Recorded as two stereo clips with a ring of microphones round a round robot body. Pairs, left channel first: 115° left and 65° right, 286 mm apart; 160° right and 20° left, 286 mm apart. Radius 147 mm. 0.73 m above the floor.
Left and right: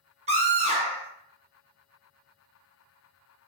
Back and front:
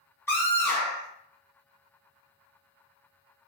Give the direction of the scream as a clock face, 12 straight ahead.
3 o'clock.